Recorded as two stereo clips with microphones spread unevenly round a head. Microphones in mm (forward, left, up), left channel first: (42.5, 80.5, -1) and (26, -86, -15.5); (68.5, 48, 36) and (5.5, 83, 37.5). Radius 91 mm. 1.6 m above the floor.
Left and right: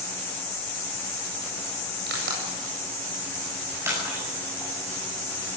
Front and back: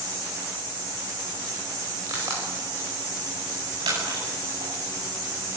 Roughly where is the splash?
Behind.